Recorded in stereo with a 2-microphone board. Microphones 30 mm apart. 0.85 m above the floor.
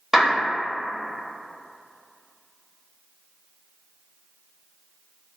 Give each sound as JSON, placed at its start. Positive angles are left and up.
{"t": 0.1, "sound": "a clap", "side_deg": -5, "distance_m": 0.9}